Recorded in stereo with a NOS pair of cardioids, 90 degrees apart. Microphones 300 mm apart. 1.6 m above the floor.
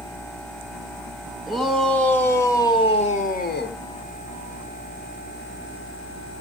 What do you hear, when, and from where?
1.5 s a shout: straight ahead, 3 m; by 3.8 s 40° left, 1.6 m